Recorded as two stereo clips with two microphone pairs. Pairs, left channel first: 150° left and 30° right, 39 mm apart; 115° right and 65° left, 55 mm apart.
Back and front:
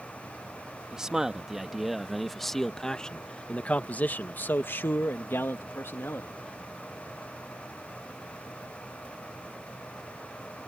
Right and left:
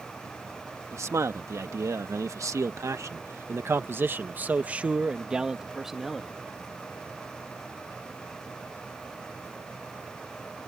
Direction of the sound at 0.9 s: 45° left.